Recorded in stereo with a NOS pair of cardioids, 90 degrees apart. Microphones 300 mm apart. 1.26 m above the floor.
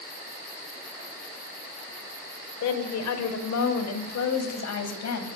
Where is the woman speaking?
65° left, 5 m; by 5.3 s 60° left, 8 m.